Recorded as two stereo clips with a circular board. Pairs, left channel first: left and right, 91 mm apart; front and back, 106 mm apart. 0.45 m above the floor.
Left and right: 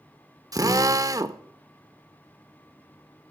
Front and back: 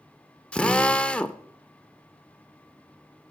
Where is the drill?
75° right, 0.6 m.